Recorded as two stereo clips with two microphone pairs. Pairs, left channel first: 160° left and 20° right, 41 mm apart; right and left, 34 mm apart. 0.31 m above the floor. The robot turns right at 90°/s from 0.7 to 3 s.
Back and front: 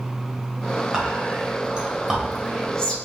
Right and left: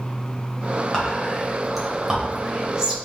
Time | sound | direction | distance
0.9 | whispering | 60° right | 1.0 m